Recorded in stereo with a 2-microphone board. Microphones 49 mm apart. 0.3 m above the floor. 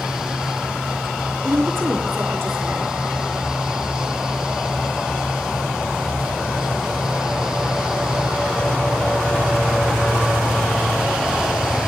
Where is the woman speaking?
60° right (ahead or behind), 4 m.